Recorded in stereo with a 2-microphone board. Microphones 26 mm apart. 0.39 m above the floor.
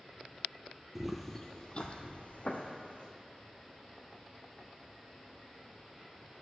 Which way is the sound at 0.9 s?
15° right (ahead or behind).